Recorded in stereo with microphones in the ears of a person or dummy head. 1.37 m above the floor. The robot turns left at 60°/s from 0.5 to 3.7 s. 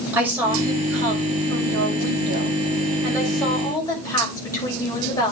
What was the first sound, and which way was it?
A woman speaking, 10° right.